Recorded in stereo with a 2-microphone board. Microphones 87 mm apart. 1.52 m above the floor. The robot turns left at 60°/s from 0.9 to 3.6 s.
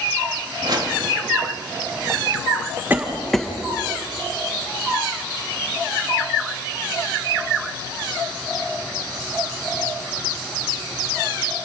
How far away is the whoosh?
About 2.5 m.